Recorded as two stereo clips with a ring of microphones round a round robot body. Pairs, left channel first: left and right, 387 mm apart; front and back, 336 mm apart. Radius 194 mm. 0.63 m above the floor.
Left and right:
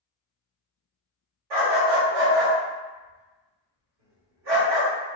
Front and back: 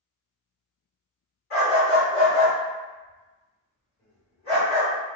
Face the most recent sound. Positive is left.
turn(degrees=-70)